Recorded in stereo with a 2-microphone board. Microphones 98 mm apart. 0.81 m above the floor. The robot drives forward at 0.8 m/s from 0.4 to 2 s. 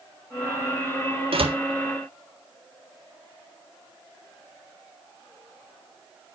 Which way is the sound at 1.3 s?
70° right (ahead or behind).